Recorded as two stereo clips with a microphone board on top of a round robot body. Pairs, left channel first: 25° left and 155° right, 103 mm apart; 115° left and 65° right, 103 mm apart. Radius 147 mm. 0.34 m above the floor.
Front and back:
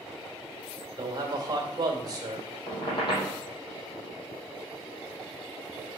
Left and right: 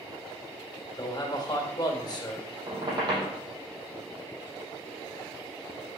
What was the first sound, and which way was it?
A man speaking, 155° left.